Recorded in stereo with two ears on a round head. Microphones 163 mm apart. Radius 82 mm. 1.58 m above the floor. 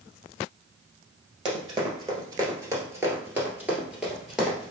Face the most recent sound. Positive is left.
turn(degrees=0)  # may be behind; listen again after turning